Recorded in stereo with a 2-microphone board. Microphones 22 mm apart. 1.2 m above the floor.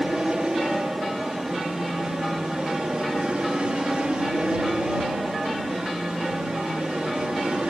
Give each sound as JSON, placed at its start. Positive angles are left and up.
{"t": 0.0, "sound": "an aircraft", "side_deg": -40}